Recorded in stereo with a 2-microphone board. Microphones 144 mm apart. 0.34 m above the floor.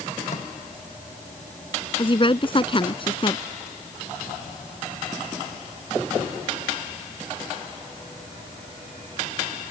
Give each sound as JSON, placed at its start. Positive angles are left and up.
{"t": 0.3, "sound": "a microwave", "side_deg": 60}
{"t": 2.0, "sound": "a woman speaking", "side_deg": 35}